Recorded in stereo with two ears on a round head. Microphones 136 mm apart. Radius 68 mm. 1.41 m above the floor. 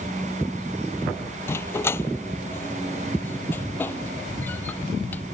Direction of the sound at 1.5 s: 15° left (ahead or behind).